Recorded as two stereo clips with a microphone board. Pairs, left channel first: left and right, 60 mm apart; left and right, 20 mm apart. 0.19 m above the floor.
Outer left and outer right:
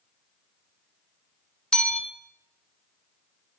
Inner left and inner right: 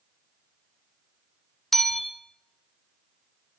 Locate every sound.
1.7 s a bell: 15° left (ahead or behind), 0.7 m